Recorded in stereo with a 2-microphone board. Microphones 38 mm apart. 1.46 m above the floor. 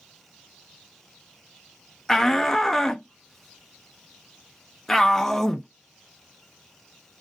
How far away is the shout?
About 0.6 m.